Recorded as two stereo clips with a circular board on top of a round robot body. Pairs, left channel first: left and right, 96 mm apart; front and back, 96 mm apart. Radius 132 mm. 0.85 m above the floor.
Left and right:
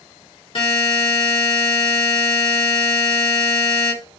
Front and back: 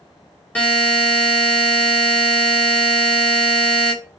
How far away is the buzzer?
About 2.5 m.